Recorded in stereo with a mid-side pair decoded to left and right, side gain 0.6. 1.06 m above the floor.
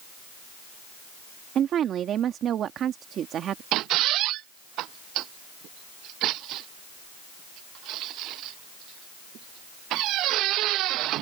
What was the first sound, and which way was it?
A woman speaking, 50° right.